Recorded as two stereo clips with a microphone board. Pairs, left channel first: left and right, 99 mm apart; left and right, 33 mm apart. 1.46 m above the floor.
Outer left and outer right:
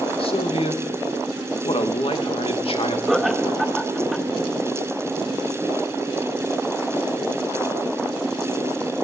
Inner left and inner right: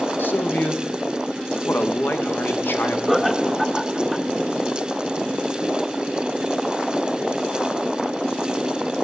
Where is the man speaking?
75° left (ahead or behind), 2.5 m.